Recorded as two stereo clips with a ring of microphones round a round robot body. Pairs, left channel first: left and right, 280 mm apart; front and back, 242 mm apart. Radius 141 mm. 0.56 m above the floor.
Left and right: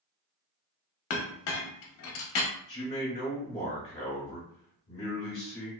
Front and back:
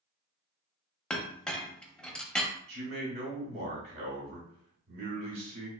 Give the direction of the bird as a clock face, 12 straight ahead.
I don't hear a bird.